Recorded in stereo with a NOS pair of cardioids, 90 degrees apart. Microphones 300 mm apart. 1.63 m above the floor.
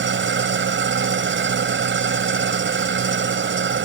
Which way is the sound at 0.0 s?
40° right.